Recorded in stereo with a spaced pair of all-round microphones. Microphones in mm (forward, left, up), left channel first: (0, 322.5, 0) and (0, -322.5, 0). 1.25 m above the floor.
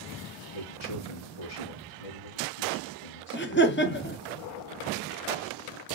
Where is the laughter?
15° left (ahead or behind), 0.8 m.